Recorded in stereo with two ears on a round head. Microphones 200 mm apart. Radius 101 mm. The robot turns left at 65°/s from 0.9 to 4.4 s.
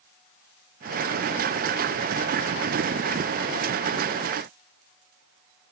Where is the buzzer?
No buzzer in this recording.